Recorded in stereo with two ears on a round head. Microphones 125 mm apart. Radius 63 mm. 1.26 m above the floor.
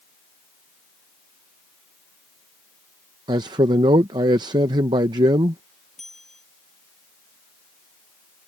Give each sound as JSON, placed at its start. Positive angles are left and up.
{"t": 3.3, "sound": "a man speaking", "side_deg": -30}
{"t": 6.0, "sound": "a bell", "side_deg": 0}